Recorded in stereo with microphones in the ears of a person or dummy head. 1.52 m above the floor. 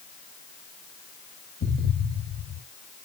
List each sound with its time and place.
1.6 s an explosion: 65° left (ahead or behind), 2.5 m